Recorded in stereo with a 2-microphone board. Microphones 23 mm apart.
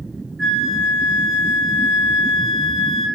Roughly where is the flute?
Centre.